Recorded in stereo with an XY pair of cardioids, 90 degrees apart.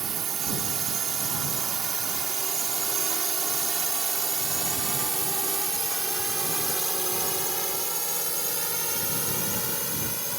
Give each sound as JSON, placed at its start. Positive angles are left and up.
{"t": 0.0, "sound": "a drone", "azimuth_deg": -60}